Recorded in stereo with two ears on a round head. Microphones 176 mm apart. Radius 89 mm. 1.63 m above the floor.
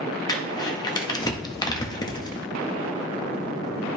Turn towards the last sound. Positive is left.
turn(degrees=20)  # may be behind; listen again after turning